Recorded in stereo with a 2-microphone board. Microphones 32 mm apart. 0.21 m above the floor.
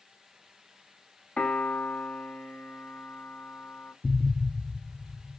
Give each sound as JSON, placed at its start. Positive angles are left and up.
{"t": 1.4, "sound": "a piano", "side_deg": 35, "distance_m": 1.0}
{"t": 4.0, "sound": "an explosion", "side_deg": 0, "distance_m": 0.6}